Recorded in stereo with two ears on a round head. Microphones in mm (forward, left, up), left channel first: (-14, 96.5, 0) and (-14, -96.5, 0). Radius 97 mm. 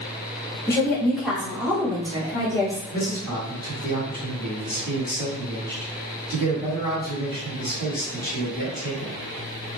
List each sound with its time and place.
0.7 s a woman speaking: 15° left (ahead or behind), 0.7 m; by 2.8 s 20° right (ahead or behind), 1.6 m
2.9 s a man speaking: 20° right (ahead or behind), 1.8 m